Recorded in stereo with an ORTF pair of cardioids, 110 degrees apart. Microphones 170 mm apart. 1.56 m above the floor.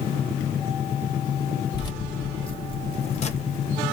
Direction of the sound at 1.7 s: 25° left.